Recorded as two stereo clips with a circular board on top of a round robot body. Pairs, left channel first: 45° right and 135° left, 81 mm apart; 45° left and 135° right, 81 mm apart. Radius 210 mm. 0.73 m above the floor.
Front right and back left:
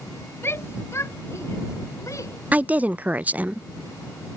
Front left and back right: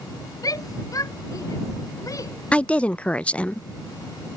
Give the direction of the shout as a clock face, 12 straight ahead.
12 o'clock.